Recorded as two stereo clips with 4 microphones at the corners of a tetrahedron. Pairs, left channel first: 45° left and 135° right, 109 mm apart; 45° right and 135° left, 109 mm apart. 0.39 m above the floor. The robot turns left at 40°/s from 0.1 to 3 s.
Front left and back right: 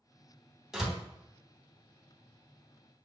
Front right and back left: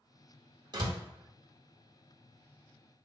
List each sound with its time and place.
0.7 s a door slam: 140° left, 0.8 m; by 1.0 s 130° left, 0.8 m